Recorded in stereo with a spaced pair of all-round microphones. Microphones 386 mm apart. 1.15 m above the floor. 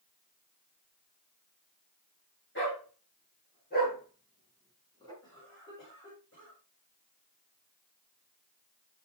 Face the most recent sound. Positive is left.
turn(degrees=30)  # may be behind; listen again after turning